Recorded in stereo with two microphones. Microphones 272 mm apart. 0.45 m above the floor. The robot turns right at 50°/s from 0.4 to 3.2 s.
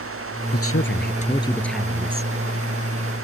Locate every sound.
0.5 s a woman speaking: 120° left; by 2.3 s 150° right